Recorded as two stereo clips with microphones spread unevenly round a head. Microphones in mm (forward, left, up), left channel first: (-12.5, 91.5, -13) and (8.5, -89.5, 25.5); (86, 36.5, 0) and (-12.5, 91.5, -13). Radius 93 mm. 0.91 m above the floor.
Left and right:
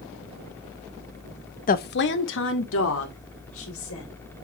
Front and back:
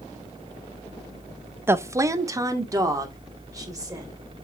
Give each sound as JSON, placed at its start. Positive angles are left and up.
{"t": 1.7, "sound": "a woman speaking", "azimuth_deg": 90, "distance_m": 0.6}